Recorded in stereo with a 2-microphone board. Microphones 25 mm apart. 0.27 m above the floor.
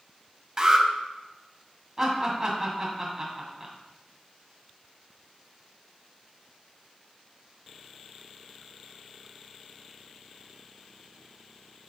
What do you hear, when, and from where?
0.6 s an alarm: 30° right (ahead or behind), 0.9 m
2.0 s laughter: 25° right (ahead or behind), 2.5 m